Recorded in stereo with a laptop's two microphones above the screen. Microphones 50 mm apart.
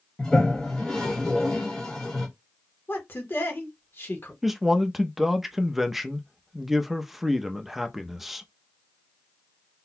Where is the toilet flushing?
10° left (ahead or behind), 1.2 m.